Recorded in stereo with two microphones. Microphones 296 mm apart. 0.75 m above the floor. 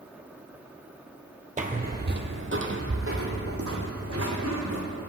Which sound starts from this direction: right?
Footsteps, at 1.6 s.